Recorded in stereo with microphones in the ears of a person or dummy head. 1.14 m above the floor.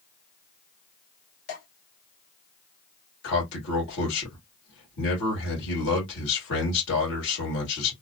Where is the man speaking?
65° left (ahead or behind), 1.7 m.